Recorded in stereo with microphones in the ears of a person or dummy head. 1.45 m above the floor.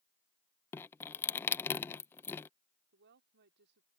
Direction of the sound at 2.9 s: 60° right (ahead or behind).